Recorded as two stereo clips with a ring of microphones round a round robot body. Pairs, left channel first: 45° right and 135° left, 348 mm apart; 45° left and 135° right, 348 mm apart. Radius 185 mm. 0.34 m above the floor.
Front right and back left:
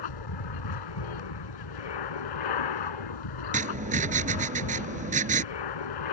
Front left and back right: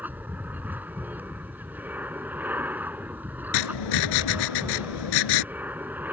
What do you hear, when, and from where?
0.0 s an aircraft: 50° right
3.5 s writing: 65° left